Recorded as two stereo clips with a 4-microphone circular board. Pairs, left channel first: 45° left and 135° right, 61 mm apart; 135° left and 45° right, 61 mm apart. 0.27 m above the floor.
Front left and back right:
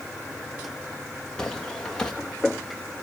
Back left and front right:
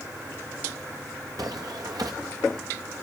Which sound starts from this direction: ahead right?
Footsteps, at 1.4 s.